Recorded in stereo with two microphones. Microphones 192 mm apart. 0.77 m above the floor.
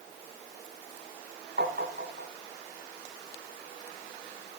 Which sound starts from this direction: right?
Tapping, at 1.6 s.